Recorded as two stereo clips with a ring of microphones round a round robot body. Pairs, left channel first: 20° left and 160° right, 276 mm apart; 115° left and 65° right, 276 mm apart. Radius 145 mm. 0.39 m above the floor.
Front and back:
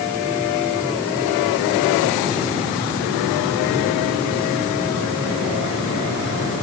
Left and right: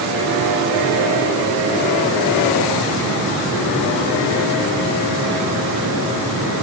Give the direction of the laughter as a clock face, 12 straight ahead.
No laughter in this recording.